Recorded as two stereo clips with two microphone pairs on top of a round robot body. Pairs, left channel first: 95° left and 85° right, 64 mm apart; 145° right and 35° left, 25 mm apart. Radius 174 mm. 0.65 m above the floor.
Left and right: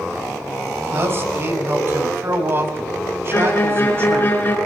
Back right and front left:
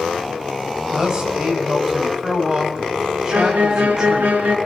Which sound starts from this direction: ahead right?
A man speaking, at 0.9 s.